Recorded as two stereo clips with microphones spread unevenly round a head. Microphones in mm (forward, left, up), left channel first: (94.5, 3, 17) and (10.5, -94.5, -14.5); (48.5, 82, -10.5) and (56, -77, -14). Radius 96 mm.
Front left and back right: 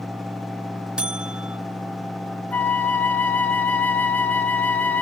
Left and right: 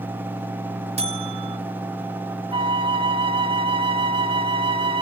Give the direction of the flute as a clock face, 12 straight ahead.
1 o'clock.